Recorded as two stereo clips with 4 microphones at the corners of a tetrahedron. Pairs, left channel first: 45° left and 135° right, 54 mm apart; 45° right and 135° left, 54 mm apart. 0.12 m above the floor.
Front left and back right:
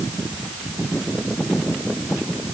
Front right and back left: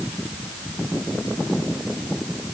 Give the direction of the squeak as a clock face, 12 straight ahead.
I don't hear a squeak.